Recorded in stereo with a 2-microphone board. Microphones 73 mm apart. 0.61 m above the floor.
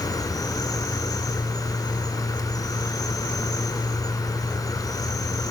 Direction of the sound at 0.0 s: 60° left (ahead or behind).